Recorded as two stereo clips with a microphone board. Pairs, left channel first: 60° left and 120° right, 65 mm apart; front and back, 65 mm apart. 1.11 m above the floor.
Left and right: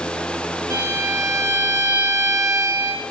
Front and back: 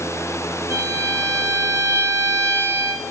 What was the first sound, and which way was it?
A violin, 145° right.